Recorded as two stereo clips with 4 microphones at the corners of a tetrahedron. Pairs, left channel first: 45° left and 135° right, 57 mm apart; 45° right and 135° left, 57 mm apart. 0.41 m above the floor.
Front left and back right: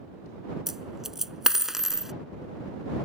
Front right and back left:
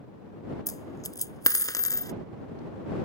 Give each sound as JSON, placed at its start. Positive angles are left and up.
{"t": 0.7, "sound": "a dropped coin", "azimuth_deg": -55}